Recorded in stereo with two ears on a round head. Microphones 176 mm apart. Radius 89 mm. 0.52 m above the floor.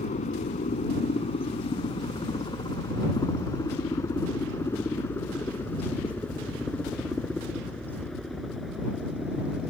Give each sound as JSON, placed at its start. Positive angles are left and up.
{"t": 0.0, "sound": "a helicopter", "side_deg": 40}